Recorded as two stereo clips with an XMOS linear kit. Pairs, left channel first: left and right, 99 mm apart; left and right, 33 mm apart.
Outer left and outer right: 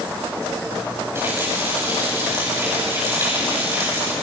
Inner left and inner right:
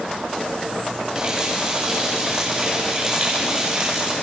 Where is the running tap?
25° right (ahead or behind), 8 m.